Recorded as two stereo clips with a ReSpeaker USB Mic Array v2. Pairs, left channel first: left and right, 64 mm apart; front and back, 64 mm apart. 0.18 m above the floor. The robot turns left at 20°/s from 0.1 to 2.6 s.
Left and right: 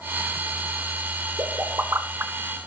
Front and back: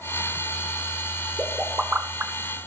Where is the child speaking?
I don't hear a child speaking.